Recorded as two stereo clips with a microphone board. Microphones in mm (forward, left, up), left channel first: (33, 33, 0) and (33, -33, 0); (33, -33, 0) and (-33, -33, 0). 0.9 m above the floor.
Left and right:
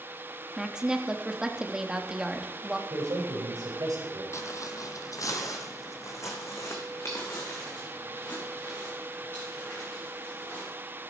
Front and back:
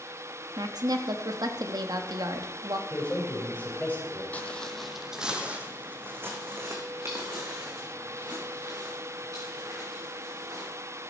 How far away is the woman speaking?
About 1.1 m.